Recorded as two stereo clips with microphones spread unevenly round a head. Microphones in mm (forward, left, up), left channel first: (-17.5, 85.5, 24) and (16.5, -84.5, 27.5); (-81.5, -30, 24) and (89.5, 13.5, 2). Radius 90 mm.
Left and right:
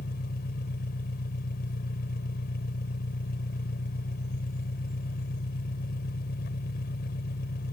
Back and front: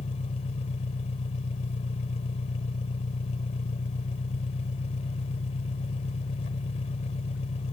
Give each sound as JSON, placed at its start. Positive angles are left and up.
{"t": 0.0, "sound": "an engine running", "azimuth_deg": 140}